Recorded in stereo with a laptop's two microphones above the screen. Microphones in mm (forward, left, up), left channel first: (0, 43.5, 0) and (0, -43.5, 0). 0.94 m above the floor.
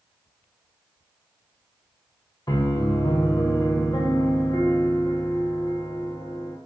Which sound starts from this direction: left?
A piano, at 2.5 s.